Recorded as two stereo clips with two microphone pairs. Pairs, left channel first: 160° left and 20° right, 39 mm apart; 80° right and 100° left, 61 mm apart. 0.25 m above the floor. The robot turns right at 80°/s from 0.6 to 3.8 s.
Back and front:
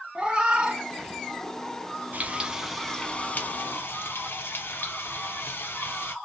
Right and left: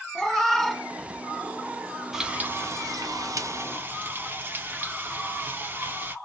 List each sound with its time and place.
0.1 s a cat meowing: straight ahead, 0.6 m; by 1.9 s 105° left, 0.6 m
2.1 s frying: 15° left, 0.5 m; by 6.2 s 150° left, 0.5 m